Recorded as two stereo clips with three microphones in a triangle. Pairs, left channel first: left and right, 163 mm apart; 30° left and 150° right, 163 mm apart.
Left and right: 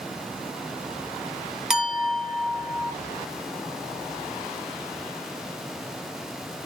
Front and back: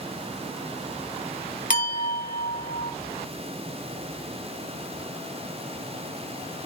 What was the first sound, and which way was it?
A clink, 5° right.